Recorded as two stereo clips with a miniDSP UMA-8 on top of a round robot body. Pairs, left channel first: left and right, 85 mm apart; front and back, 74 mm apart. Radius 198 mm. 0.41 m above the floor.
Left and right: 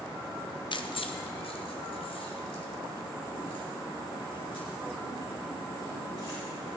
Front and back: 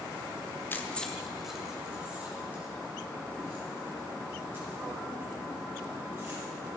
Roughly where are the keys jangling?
Ahead left.